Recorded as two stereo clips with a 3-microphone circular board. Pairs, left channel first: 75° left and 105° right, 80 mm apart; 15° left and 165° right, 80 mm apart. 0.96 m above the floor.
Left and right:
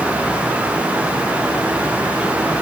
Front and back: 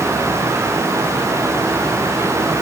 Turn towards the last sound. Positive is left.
No sound to turn to.